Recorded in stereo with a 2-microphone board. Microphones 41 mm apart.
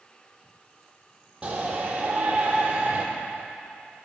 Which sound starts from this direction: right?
A shout, at 1.4 s.